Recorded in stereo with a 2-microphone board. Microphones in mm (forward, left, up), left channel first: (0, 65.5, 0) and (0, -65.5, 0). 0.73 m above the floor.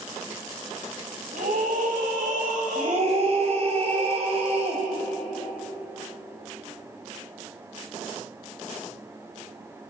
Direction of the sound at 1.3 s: 80° right.